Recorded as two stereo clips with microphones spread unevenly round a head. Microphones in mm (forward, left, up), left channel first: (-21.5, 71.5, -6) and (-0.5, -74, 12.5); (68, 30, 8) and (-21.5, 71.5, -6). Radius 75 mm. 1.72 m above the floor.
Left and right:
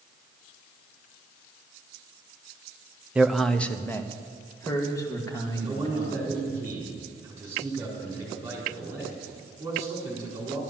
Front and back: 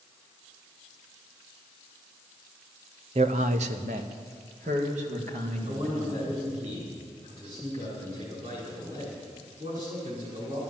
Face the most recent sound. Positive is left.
turn(degrees=-150)